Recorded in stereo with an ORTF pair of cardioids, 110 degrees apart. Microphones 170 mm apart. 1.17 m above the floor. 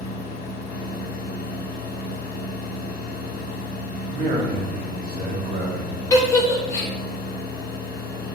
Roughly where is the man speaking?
Ahead right.